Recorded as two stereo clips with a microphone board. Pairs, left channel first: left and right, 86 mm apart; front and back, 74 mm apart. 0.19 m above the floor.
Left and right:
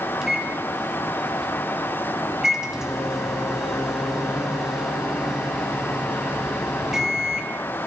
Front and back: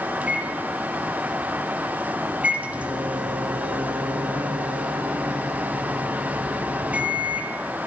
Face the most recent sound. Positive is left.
turn(degrees=-160)